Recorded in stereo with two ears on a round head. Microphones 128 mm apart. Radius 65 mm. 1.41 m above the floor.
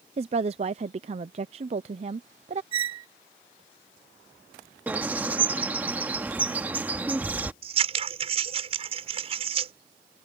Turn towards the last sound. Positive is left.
turn(degrees=-45)  # may be behind; listen again after turning